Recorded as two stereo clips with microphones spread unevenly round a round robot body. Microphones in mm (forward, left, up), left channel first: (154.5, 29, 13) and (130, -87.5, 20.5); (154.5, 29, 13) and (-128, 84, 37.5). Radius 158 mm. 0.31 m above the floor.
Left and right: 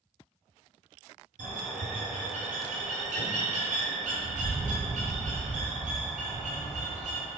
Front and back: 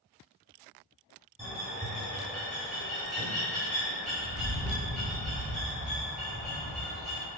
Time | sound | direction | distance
1.4 | a bird | 100° right | 1.4 m